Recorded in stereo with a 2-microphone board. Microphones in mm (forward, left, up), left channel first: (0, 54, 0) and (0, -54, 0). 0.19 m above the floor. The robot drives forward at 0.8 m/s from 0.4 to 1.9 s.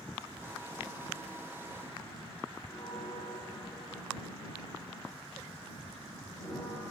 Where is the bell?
10° left (ahead or behind), 9.5 m.